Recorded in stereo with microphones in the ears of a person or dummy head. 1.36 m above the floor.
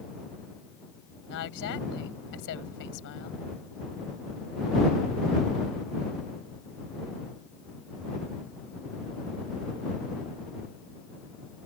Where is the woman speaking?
60° left (ahead or behind).